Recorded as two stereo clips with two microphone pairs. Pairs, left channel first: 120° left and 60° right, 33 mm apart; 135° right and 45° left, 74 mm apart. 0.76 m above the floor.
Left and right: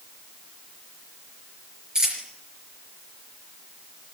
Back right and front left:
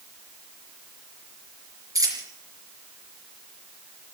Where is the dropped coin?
5° left, 4.5 m.